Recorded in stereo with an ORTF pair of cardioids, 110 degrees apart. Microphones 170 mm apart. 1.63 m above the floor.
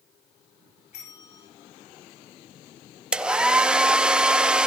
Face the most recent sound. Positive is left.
turn(degrees=-5)